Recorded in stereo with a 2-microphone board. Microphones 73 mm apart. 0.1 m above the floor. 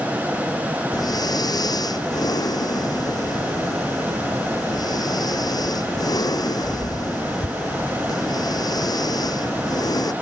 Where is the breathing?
70° left (ahead or behind).